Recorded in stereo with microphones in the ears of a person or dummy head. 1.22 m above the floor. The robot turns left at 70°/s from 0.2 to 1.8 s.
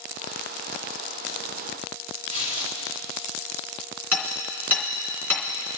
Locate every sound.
2.3 s tearing paper: 45° right (ahead or behind), 3.5 m
4.1 s hammering: centre (ahead or behind), 3 m